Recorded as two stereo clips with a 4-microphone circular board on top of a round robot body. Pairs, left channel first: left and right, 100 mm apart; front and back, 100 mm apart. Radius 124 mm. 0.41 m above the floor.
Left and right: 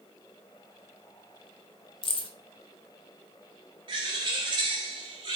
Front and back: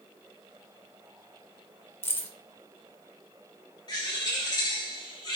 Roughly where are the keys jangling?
Ahead left.